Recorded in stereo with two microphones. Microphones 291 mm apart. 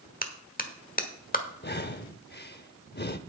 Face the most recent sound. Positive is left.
turn(degrees=35)  # may be behind; listen again after turning